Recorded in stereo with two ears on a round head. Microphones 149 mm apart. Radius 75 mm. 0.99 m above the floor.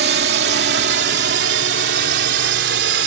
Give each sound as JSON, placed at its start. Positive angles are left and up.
{"t": 0.0, "sound": "a drone", "side_deg": -70}